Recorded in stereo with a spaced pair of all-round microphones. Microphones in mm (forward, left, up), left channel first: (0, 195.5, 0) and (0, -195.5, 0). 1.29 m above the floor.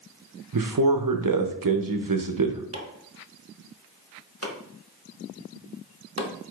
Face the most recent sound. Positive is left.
turn(degrees=-40)  # may be behind; listen again after turning